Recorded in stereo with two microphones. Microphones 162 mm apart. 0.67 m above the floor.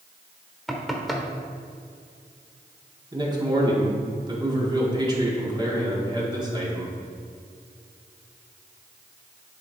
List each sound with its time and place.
0.7 s knocking: centre (ahead or behind), 1.2 m
3.1 s a man speaking: 25° right (ahead or behind), 1.8 m